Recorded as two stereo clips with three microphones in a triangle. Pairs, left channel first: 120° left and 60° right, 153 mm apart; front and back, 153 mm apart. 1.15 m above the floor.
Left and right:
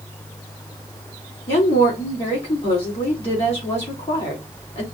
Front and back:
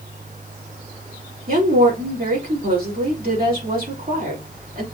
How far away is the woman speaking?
About 3.5 m.